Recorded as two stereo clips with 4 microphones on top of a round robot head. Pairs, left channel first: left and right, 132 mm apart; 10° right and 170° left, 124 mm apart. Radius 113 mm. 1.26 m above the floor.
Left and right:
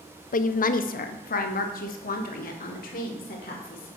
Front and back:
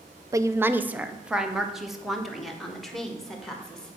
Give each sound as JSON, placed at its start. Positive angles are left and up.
{"t": 0.3, "sound": "a woman speaking", "azimuth_deg": 105, "distance_m": 0.6}